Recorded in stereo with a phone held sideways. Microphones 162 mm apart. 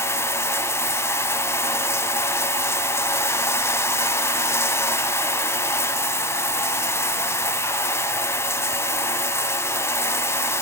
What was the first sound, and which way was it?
Running water, 15° left (ahead or behind).